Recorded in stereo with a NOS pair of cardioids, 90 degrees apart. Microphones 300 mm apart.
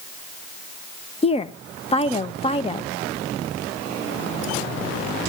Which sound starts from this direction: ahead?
A woman speaking, at 1.2 s.